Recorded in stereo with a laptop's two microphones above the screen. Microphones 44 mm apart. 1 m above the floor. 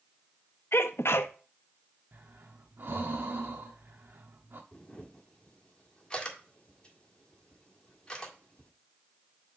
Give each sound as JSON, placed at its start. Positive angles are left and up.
{"t": 0.7, "sound": "a sneeze", "side_deg": 70, "distance_m": 0.6}
{"t": 2.1, "sound": "breathing", "side_deg": -55, "distance_m": 0.9}
{"t": 4.7, "sound": "a camera shutter", "side_deg": 20, "distance_m": 1.7}